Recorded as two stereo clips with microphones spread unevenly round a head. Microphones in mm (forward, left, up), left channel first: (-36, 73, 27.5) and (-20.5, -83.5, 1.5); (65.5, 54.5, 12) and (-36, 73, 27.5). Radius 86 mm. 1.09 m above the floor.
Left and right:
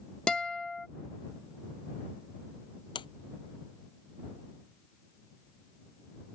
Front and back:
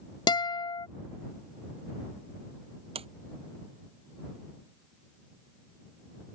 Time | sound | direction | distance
0.3 | a guitar | 5° left | ?
3.0 | a sliding door | 150° left | ?